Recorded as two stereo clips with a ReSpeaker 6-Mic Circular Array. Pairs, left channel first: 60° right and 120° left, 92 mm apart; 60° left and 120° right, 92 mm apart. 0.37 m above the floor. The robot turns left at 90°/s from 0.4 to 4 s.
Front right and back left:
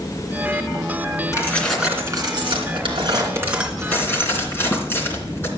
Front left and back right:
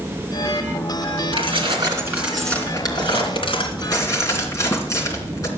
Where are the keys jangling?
115° right, 3 m; by 5.5 s 5° left, 3 m.